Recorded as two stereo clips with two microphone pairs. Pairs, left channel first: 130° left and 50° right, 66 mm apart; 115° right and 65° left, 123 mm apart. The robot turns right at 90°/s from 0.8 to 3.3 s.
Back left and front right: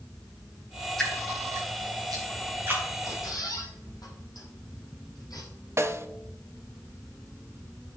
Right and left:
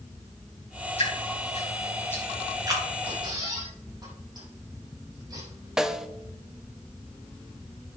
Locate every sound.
1.0 s dripping: 145° right, 6.5 m; by 2.8 s 20° left, 6.5 m
3.0 s a squeak: 100° left, 6 m; by 5.5 s 120° left, 6 m
5.8 s a snare drum: 15° right, 0.9 m